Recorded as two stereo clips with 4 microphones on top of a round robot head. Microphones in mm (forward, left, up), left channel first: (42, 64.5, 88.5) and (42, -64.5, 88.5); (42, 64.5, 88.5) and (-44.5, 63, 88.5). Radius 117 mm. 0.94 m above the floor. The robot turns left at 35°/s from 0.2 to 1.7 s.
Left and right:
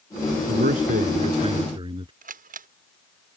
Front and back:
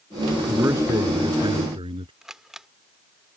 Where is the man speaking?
105° right; by 2.1 s 150° right.